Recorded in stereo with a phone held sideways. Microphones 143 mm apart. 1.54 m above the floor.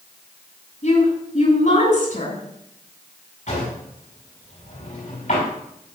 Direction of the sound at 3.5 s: 65° left (ahead or behind).